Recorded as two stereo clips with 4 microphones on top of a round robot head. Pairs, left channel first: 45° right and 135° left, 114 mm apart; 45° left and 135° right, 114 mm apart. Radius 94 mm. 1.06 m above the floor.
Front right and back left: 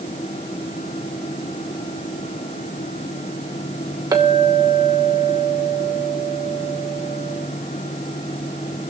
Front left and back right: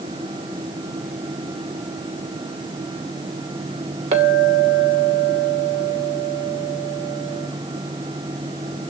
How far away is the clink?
About 2.5 m.